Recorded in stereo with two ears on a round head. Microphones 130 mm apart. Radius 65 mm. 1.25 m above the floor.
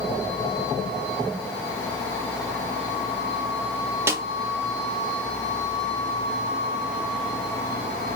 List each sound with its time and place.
4.1 s a snare drum: 20° right (ahead or behind), 0.6 m